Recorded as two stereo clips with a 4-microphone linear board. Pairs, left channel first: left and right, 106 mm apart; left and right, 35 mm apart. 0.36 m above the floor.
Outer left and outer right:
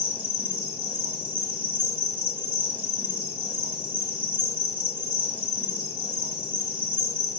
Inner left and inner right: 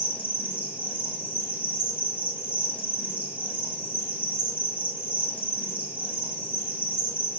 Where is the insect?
55° right (ahead or behind), 1.7 m.